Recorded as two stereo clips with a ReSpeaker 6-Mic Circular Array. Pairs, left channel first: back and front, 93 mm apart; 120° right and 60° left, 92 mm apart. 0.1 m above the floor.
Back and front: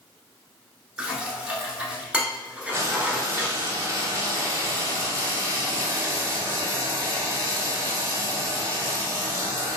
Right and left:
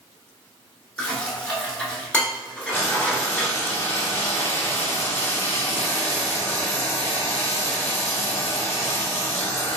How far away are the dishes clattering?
About 0.8 m.